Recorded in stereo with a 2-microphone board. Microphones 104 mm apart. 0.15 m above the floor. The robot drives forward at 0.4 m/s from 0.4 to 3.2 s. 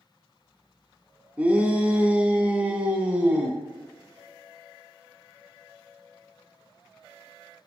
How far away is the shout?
About 1.3 m.